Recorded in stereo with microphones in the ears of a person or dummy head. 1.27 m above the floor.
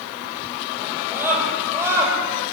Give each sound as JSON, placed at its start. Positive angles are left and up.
{"t": 0.8, "sound": "a scream", "side_deg": -5, "distance_m": 6.5}